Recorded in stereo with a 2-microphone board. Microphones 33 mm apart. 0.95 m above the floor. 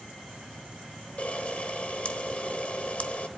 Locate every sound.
1.2 s a camera shutter: 45° left (ahead or behind), 1.0 m